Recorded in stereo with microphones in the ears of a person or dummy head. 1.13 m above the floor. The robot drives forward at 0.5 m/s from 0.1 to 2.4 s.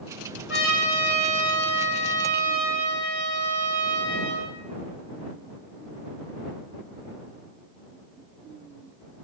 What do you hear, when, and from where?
0.5 s a trumpet: 10° right (ahead or behind), 1.6 m; by 4.5 s 5° right (ahead or behind), 2.5 m